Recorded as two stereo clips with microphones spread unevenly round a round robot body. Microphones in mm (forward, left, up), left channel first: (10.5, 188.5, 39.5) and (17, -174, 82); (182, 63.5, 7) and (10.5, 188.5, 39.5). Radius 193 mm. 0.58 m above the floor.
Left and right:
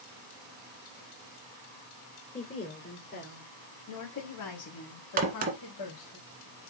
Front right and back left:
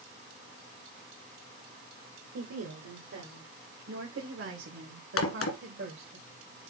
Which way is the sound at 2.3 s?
155° left.